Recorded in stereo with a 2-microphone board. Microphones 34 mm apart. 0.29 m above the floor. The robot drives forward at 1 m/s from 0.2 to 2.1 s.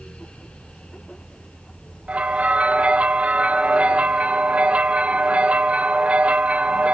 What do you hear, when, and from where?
2.1 s a bell: 35° right (ahead or behind), 0.9 m